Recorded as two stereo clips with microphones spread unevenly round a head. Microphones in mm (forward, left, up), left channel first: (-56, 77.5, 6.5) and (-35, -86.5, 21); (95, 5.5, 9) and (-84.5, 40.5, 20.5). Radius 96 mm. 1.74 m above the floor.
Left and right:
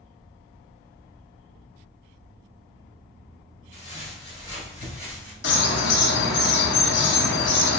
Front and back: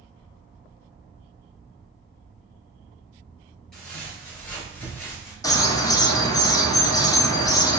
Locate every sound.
3.7 s footsteps: 80° left, 2.0 m; by 5.3 s 25° left, 1.7 m
5.4 s a bird: 60° left, 0.6 m